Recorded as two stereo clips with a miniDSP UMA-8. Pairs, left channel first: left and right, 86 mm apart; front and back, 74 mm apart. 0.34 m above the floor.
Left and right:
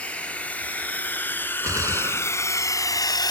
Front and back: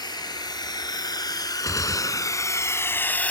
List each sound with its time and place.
0.0 s a drone: 15° left; by 3.3 s 70° left
1.6 s a gunshot: 40° right